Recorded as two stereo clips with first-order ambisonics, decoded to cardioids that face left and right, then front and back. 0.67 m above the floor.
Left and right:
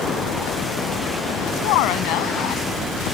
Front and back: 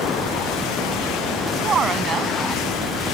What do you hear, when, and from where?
1.6 s a woman speaking: 115° left